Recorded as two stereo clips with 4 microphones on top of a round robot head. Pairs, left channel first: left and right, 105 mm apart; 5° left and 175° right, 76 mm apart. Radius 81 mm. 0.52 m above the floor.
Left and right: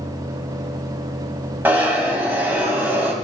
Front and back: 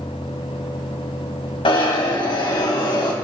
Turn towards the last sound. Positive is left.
turn(degrees=-15)